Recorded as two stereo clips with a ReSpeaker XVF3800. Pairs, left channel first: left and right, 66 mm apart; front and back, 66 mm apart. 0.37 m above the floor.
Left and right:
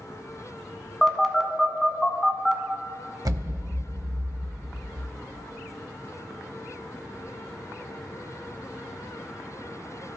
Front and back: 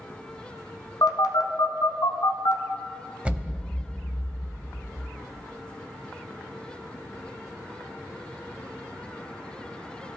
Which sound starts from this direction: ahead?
A phone buzzing, at 1.0 s.